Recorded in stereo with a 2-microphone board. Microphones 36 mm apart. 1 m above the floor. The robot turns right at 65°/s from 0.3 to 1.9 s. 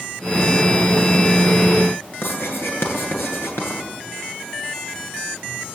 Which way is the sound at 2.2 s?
85° left.